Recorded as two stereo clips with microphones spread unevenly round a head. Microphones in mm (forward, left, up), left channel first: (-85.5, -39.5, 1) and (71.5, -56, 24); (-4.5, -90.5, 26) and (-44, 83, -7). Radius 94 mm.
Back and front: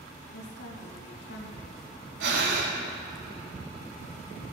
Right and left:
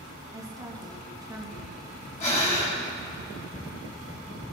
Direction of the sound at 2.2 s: 20° right.